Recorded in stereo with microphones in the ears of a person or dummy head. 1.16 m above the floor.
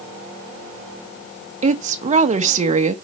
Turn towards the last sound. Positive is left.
turn(degrees=-40)  # may be behind; listen again after turning